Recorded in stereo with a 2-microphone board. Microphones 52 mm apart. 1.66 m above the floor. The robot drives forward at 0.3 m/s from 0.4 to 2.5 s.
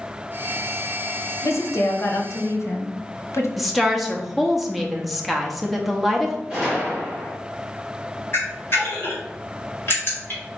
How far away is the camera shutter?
About 2 m.